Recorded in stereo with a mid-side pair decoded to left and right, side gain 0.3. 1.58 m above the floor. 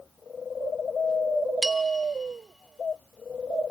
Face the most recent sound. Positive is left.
turn(degrees=-25)